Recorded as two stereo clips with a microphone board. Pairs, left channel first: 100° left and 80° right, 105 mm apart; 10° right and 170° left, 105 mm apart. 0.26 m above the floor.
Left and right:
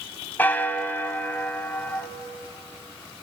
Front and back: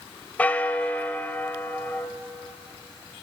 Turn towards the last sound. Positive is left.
turn(degrees=50)